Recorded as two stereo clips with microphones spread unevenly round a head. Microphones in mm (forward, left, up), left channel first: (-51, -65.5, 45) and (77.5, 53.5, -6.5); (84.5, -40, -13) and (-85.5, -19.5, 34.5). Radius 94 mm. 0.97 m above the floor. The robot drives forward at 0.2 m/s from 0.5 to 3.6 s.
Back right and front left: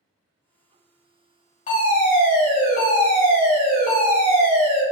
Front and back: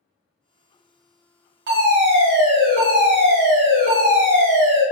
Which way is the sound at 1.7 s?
Straight behind.